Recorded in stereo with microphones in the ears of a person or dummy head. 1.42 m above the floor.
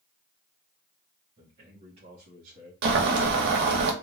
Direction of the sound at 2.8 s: 60° right (ahead or behind).